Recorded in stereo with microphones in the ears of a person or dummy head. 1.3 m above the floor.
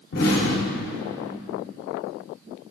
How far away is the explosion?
About 2.5 m.